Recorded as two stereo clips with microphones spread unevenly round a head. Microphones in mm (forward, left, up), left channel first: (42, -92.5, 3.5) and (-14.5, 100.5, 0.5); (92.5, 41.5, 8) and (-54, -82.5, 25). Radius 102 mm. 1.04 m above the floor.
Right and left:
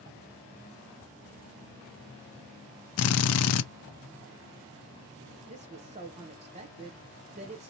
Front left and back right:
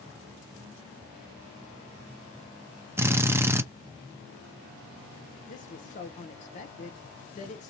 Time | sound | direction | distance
3.0 | a drill | 60° right | 0.5 m
5.5 | a woman speaking | 65° left | 0.7 m